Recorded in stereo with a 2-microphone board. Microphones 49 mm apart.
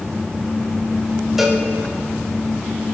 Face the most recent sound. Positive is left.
turn(degrees=-5)  # may be behind; listen again after turning